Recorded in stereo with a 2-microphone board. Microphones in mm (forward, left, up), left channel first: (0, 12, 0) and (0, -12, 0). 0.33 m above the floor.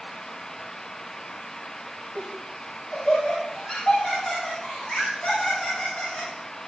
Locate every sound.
2.1 s laughter: 35° left (ahead or behind), 7 m